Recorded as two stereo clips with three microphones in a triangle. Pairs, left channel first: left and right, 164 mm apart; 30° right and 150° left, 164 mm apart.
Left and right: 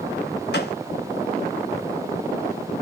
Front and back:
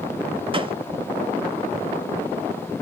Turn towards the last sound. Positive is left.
turn(degrees=90)